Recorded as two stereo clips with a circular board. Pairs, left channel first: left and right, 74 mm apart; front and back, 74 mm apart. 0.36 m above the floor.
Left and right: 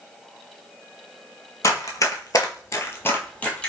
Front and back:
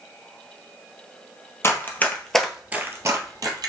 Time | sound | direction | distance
1.6 | running footsteps | 50° left | 0.7 m